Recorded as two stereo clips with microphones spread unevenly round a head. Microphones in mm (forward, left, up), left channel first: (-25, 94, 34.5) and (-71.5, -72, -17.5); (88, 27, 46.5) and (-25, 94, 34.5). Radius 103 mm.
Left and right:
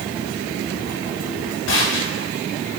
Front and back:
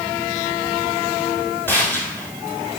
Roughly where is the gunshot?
Ahead left.